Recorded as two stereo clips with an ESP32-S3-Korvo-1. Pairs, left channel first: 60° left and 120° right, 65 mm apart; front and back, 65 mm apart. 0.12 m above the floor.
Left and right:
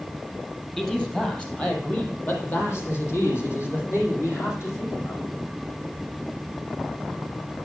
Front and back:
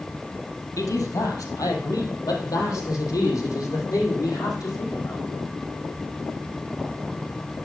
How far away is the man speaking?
About 3 m.